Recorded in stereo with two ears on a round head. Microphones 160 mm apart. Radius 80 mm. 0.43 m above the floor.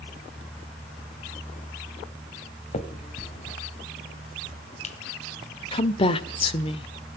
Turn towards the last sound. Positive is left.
turn(degrees=30)  # may be behind; listen again after turning